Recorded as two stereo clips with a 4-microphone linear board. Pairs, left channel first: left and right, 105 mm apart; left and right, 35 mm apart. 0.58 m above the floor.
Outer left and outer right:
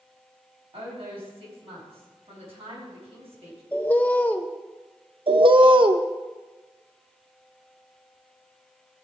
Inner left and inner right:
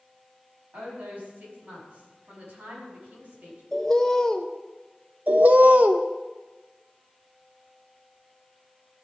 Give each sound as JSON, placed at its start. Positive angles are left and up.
{"t": 0.7, "sound": "a woman speaking", "side_deg": -65, "distance_m": 5.0}
{"t": 3.7, "sound": "a bird", "side_deg": 15, "distance_m": 0.6}
{"t": 5.3, "sound": "a bird", "side_deg": -50, "distance_m": 0.6}